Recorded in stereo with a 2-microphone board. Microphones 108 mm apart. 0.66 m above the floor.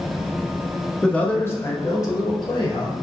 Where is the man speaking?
5° left (ahead or behind), 0.7 m; by 2.9 s 45° left (ahead or behind), 1.4 m.